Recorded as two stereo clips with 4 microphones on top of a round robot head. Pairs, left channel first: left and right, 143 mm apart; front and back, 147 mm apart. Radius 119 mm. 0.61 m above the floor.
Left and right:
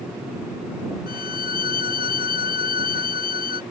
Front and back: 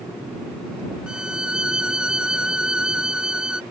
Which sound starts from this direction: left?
A violin, at 1.1 s.